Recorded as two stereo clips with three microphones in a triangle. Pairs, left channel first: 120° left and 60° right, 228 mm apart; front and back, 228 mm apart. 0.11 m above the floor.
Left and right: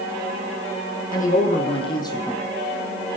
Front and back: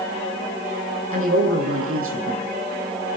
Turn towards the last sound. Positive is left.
turn(degrees=-160)